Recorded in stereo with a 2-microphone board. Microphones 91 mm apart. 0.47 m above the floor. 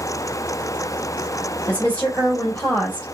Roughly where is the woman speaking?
Centre.